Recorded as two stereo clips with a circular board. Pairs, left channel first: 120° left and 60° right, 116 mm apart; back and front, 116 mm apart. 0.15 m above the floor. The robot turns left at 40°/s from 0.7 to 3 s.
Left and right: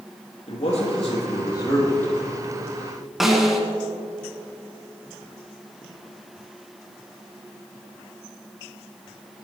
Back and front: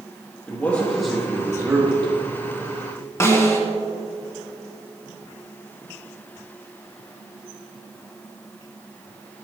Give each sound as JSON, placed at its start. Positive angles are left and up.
{"t": 0.5, "sound": "a man speaking", "azimuth_deg": 105, "distance_m": 4.5}
{"t": 3.2, "sound": "a snare drum", "azimuth_deg": -145, "distance_m": 1.8}